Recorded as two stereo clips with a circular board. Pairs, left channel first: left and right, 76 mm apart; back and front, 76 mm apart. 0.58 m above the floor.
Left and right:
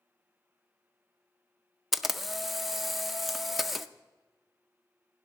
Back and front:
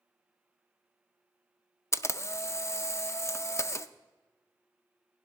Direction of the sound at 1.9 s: Straight behind.